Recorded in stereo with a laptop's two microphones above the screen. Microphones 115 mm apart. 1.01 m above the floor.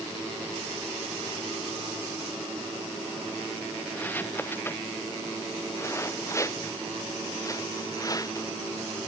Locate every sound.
3.9 s footsteps: 15° left (ahead or behind); by 9.1 s 35° left (ahead or behind)